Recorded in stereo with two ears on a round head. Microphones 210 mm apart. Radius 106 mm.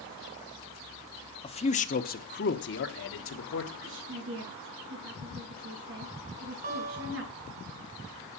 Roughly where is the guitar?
Right.